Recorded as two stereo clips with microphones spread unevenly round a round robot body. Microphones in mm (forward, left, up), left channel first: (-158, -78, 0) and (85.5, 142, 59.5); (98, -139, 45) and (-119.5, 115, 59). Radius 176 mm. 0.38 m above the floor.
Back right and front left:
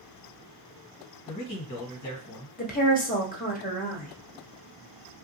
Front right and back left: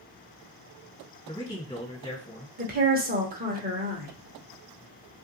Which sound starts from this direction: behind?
A woman speaking, at 2.6 s.